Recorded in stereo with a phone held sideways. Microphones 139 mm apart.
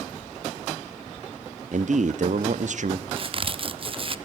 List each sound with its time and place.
1.7 s a man speaking: 60° right (ahead or behind), 0.9 m
3.1 s a crack: 40° right (ahead or behind), 0.8 m